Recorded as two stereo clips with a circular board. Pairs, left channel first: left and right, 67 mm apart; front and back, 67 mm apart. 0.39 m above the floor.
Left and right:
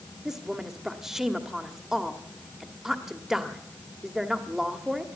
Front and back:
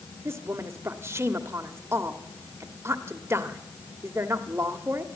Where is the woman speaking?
170° right, 1.3 m.